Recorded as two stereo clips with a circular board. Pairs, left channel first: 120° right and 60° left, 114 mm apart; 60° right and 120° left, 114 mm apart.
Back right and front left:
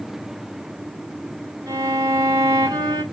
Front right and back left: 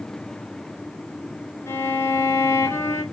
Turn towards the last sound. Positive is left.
turn(degrees=5)